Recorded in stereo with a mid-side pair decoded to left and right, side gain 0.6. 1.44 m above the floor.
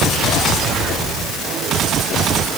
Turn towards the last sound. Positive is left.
No sound to turn to.